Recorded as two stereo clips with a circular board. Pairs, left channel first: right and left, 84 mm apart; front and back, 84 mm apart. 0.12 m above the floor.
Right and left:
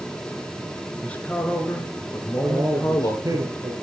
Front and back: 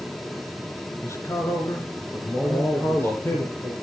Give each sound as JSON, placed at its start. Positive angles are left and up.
{"t": 1.0, "sound": "a man speaking", "azimuth_deg": -20, "distance_m": 1.9}
{"t": 2.4, "sound": "a man speaking", "azimuth_deg": 55, "distance_m": 3.0}